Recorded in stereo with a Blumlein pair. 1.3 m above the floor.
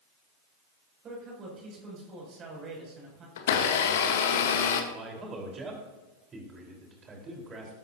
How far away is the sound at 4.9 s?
About 4.5 m.